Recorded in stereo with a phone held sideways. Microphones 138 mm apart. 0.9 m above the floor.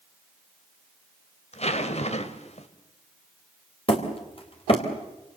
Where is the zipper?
50° left (ahead or behind), 1.9 m.